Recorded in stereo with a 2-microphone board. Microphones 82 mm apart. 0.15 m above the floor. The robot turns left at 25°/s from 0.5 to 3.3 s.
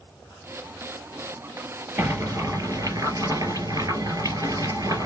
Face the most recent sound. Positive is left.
turn(degrees=-65)